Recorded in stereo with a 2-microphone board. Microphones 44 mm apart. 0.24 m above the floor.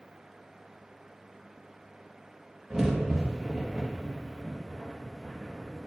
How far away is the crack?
About 2.5 m.